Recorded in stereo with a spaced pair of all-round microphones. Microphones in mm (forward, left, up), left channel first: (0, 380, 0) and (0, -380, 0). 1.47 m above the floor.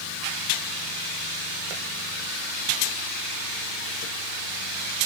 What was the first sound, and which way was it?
Only background noise.